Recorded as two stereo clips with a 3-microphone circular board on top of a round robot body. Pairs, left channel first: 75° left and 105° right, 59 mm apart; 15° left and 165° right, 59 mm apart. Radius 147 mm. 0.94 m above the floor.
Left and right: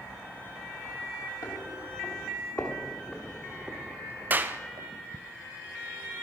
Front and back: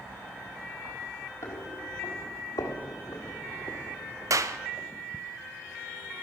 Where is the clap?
155° right, 0.9 m.